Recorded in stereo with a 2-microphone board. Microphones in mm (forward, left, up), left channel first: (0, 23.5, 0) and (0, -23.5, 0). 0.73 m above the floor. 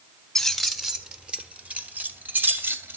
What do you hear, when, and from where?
0.3 s keys jangling: 5° left (ahead or behind), 1.3 m; by 3.0 s 50° right (ahead or behind), 2.5 m